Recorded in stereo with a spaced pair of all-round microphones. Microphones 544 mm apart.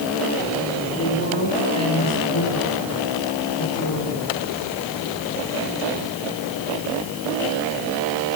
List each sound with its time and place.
1.0 s a woman speaking: 25° left (ahead or behind), 9 m; by 4.3 s 35° left (ahead or behind), 10.5 m